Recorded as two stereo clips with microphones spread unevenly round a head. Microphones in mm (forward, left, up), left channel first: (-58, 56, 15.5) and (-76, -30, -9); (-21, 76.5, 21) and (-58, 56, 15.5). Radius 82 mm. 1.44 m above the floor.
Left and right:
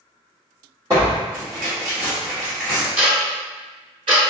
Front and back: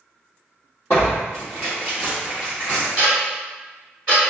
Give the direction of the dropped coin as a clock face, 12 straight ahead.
No dropped coin in this recording.